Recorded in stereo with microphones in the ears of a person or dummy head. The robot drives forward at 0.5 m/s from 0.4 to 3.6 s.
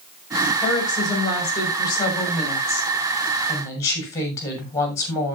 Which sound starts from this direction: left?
A woman speaking, at 0.6 s.